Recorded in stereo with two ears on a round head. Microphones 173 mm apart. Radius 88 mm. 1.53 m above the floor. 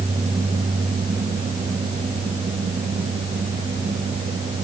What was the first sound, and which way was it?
Only background noise.